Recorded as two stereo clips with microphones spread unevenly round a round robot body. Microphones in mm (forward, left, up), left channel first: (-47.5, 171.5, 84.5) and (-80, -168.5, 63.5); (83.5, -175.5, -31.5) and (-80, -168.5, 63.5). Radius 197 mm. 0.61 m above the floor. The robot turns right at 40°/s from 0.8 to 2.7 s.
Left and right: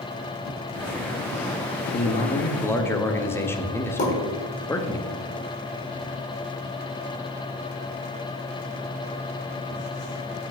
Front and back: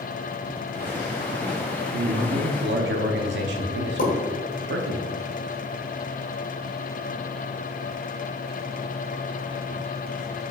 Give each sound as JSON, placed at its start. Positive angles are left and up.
{"t": 1.9, "sound": "a man speaking", "azimuth_deg": 140, "distance_m": 0.7}
{"t": 4.0, "sound": "a pop", "azimuth_deg": 15, "distance_m": 1.7}